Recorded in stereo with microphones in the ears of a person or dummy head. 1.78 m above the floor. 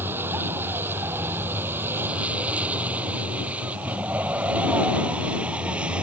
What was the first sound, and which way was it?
A vehicle, 10° right (ahead or behind).